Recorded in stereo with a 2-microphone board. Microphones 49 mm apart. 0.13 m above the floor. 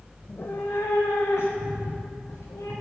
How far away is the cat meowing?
About 0.8 m.